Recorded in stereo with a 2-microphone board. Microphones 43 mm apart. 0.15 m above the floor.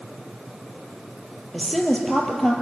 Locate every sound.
1.5 s a woman speaking: 10° left (ahead or behind), 3.5 m